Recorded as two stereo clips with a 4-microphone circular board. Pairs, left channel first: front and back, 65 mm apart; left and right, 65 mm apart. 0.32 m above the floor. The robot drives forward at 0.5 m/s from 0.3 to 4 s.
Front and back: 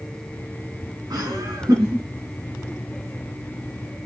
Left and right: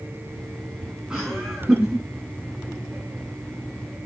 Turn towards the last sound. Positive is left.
turn(degrees=-170)